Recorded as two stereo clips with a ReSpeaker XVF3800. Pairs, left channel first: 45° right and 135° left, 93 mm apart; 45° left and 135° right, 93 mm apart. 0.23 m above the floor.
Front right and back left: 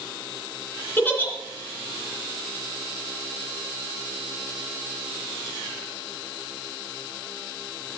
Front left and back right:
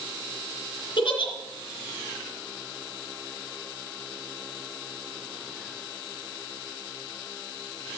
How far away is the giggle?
About 2.5 m.